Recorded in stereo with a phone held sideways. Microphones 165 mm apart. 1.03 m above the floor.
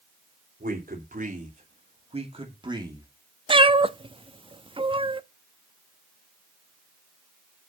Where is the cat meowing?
30° right (ahead or behind), 0.5 m.